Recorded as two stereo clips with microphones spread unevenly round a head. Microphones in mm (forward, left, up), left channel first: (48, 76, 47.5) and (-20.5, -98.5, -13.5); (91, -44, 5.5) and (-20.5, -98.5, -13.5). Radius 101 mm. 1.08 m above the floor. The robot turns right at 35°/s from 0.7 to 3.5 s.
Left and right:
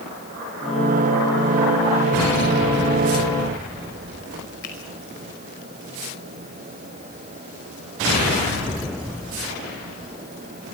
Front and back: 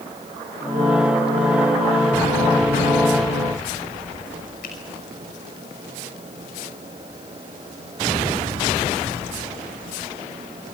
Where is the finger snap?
35° left, 5.5 m.